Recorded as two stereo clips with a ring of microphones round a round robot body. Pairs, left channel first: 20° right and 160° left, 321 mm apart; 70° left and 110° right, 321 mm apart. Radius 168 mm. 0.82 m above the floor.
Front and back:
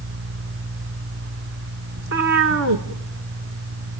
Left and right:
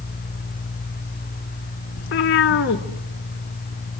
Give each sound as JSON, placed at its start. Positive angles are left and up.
{"t": 2.0, "sound": "a cat meowing", "azimuth_deg": 120, "distance_m": 1.2}